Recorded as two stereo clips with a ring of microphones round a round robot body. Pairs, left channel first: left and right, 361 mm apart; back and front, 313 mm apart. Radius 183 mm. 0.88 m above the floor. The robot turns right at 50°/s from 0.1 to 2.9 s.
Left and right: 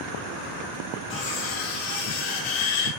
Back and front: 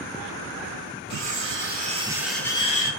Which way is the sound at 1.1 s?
30° left.